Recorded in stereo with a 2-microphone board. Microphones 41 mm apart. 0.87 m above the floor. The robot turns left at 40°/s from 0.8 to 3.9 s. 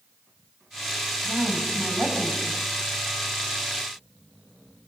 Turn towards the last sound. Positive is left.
turn(degrees=120)